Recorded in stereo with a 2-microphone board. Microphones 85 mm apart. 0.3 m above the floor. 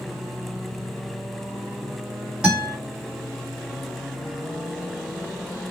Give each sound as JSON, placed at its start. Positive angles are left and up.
{"t": 2.4, "sound": "a guitar", "side_deg": -10, "distance_m": 1.7}